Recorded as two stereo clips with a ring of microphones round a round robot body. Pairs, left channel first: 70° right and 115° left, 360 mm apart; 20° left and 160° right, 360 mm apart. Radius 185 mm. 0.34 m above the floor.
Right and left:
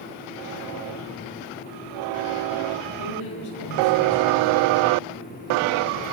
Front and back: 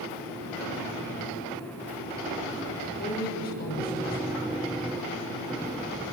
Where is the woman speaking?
40° right, 8 m.